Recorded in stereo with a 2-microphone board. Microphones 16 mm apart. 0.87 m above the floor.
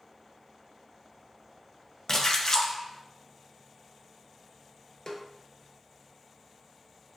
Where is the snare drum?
45° left (ahead or behind), 0.6 m.